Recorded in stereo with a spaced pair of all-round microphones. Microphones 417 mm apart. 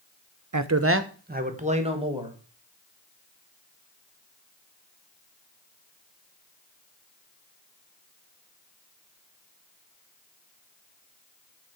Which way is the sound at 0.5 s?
45° right (ahead or behind).